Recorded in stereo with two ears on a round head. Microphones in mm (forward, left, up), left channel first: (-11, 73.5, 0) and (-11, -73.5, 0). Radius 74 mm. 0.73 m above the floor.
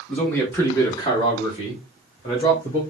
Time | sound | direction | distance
0.1 | a man speaking | 5° left (ahead or behind) | 1.4 m